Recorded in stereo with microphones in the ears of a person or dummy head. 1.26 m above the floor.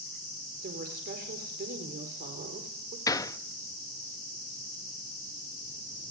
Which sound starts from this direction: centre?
A gunshot, at 3.1 s.